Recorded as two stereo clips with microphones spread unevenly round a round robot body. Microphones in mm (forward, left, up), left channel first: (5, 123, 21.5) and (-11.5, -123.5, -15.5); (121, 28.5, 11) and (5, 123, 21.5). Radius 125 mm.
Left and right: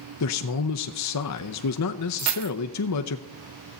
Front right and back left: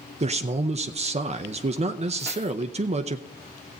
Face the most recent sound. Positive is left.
turn(degrees=-120)